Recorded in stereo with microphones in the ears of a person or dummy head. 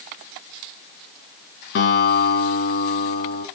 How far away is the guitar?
About 4 m.